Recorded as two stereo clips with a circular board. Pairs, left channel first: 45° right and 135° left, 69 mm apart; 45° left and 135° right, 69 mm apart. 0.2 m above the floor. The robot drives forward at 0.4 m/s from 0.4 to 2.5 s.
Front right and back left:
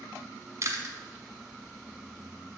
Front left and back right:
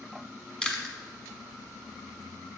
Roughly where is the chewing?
Behind left.